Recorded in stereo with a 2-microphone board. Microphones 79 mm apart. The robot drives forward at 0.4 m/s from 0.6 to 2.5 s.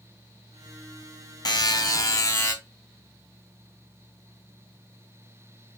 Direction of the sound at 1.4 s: 60° left (ahead or behind).